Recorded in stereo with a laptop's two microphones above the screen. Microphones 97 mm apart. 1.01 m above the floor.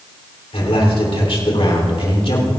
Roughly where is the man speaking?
Left.